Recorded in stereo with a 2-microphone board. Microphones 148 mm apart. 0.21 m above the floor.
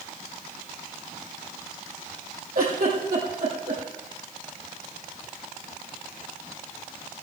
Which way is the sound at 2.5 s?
75° right (ahead or behind).